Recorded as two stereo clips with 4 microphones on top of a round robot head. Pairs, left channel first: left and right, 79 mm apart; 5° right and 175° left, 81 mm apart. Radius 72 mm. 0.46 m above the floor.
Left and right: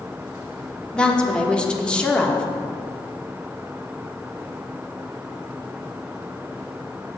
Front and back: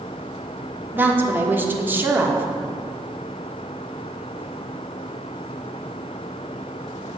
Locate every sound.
0.9 s a woman speaking: 150° left, 1.3 m